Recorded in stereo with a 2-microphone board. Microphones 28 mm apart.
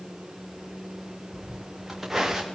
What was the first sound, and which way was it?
Footsteps, 10° right (ahead or behind).